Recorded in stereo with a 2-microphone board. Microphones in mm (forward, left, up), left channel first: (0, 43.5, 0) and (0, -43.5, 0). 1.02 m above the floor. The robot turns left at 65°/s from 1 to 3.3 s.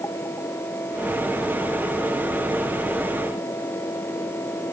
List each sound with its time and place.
Only background noise.